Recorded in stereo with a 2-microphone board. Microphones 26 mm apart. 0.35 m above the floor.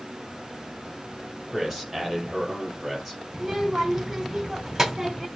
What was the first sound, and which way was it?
A man speaking, centre (ahead or behind).